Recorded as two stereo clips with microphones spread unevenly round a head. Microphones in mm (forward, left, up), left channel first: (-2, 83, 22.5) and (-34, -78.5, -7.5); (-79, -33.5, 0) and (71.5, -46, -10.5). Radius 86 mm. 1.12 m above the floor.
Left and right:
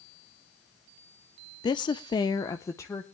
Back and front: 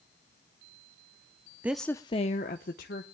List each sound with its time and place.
1.6 s a woman speaking: 35° left, 0.5 m; by 3.0 s 155° left, 1.2 m